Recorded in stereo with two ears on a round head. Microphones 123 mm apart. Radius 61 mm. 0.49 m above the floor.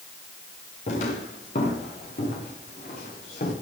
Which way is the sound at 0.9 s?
55° left (ahead or behind).